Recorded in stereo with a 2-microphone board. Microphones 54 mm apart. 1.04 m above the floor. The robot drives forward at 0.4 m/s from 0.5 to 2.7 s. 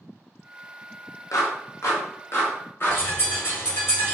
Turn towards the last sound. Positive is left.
turn(degrees=45)  # may be behind; listen again after turning